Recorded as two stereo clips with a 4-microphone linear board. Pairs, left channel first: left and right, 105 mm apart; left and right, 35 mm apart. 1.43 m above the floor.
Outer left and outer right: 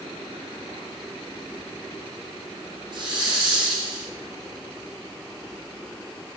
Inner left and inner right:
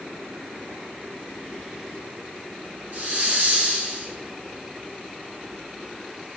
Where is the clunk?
I don't hear a clunk.